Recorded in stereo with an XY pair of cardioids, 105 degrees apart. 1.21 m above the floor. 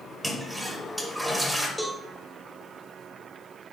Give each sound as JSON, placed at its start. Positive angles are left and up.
{"t": 0.2, "sound": "a toilet flushing", "azimuth_deg": -5, "distance_m": 1.0}
{"t": 1.8, "sound": "a cowbell", "azimuth_deg": 0, "distance_m": 0.9}